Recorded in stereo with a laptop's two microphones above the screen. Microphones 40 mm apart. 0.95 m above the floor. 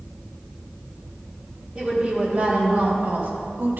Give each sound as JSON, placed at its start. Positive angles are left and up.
{"t": 1.8, "sound": "a woman speaking", "side_deg": -30, "distance_m": 2.0}